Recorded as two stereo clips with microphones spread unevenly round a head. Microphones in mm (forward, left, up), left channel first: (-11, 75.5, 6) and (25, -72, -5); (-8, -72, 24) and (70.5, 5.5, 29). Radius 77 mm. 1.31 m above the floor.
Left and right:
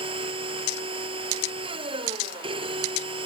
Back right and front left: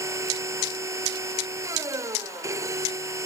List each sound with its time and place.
0.0 s a machine running: 20° right